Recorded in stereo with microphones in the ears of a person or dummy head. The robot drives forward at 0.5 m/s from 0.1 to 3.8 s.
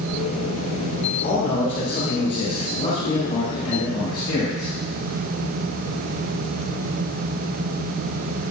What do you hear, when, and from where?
1.2 s a man speaking: 45° left (ahead or behind), 1.6 m; by 4.7 s 25° left (ahead or behind), 2.5 m